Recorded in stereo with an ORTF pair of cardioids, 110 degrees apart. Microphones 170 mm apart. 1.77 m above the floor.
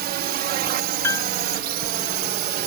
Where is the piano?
15° left.